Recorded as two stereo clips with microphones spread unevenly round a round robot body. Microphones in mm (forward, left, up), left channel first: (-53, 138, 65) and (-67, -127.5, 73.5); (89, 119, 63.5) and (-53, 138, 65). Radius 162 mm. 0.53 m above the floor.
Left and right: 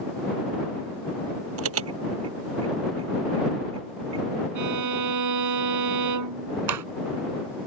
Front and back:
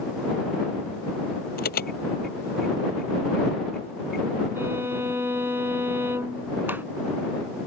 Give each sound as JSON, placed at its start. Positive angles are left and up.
{"t": 1.6, "sound": "an alarm", "azimuth_deg": -45}
{"t": 4.5, "sound": "a violin", "azimuth_deg": -105}
{"t": 6.7, "sound": "a clap", "azimuth_deg": -105}